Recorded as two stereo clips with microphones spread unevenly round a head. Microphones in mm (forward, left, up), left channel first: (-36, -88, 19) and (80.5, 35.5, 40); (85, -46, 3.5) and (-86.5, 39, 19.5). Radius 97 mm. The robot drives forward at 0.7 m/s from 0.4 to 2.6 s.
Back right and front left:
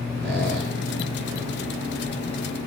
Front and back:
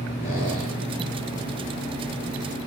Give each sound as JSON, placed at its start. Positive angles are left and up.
{"t": 0.2, "sound": "a squeak", "azimuth_deg": 30, "distance_m": 5.5}